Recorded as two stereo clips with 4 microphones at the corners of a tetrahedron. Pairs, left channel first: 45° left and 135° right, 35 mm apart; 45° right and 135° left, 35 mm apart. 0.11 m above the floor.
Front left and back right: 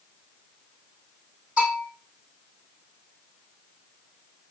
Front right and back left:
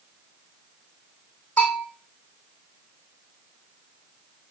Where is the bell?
90° right, 4 m.